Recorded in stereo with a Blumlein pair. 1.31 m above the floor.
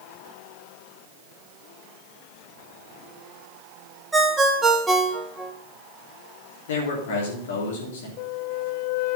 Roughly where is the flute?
Ahead left.